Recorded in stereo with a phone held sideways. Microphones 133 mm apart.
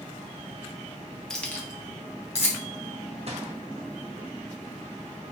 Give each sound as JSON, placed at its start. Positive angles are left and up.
{"t": 1.3, "sound": "keys jangling", "side_deg": 5, "distance_m": 0.6}
{"t": 3.3, "sound": "a gunshot", "side_deg": -50, "distance_m": 0.8}